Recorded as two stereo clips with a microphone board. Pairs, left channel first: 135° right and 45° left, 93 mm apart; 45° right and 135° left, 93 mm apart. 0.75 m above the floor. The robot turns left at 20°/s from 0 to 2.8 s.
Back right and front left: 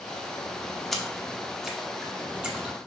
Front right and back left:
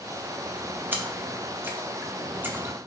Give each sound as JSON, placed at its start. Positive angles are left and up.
{"t": 0.9, "sound": "a splash", "azimuth_deg": 140, "distance_m": 0.7}